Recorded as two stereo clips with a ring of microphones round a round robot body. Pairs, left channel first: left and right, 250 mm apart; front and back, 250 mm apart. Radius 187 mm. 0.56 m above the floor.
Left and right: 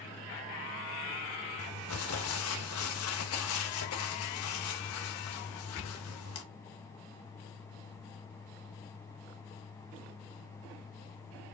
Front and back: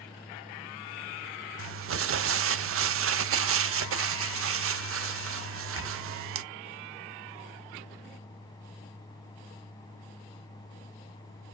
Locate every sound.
1.6 s crumpling: 140° left, 0.6 m